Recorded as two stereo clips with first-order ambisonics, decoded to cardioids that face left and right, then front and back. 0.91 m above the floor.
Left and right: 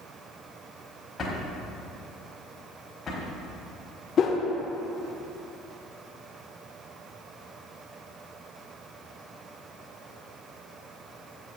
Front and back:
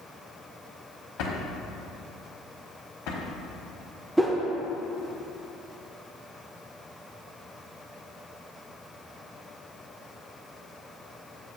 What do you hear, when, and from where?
1.2 s a drawer: 20° left, 1.2 m
4.2 s a whoosh: 100° left, 0.5 m